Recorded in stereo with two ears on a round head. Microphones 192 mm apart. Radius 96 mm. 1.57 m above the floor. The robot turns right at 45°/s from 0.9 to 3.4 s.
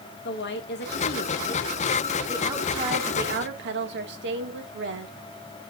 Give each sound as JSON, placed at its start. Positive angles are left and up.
{"t": 0.2, "sound": "a woman speaking", "azimuth_deg": 125, "distance_m": 1.9}